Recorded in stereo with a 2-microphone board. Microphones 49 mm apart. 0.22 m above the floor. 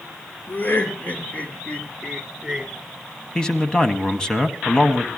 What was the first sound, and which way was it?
Laughter, 45° left (ahead or behind).